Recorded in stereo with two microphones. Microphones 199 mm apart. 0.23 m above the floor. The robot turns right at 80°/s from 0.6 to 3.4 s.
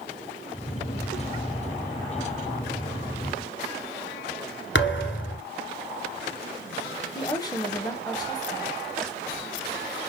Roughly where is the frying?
Centre.